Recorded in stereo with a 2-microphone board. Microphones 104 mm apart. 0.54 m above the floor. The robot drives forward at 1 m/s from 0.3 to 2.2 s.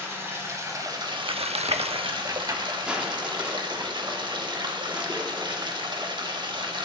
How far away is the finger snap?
No finger snap in this recording.